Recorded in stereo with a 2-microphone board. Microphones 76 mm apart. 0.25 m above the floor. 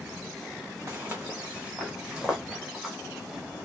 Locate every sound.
0.9 s footsteps: 35° right (ahead or behind), 1.2 m; by 3.0 s 10° right (ahead or behind), 3 m